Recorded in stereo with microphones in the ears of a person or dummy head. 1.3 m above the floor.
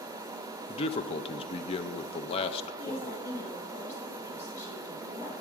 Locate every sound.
0.7 s a man speaking: 30° left (ahead or behind), 0.5 m
2.8 s a woman speaking: 15° left (ahead or behind), 2.5 m